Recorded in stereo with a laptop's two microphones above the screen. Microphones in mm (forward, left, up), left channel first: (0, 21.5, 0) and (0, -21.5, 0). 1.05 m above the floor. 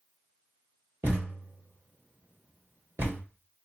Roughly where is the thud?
Right.